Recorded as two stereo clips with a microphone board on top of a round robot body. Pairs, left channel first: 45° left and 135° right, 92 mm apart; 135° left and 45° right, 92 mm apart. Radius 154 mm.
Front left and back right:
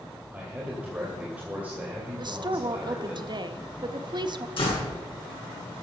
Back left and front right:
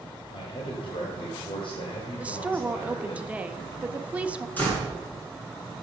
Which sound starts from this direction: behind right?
A woman speaking, at 2.2 s.